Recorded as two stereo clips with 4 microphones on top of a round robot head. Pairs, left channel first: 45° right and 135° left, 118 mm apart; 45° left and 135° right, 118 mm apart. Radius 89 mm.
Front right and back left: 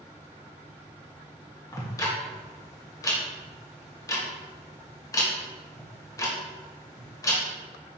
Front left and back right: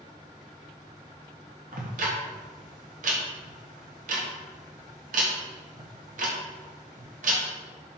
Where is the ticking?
110° right, 1.2 m.